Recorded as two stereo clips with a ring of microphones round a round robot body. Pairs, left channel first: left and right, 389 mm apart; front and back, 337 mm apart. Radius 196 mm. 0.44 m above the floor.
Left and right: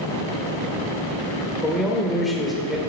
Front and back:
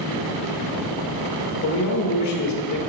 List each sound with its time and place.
1.6 s a man speaking: straight ahead, 1.3 m